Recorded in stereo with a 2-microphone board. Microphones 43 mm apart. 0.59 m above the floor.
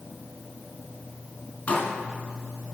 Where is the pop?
25° left (ahead or behind), 2.5 m.